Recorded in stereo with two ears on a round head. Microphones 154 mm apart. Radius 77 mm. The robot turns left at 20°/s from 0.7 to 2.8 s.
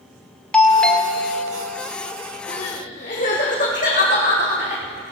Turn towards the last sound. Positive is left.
turn(degrees=45)  # may be behind; listen again after turning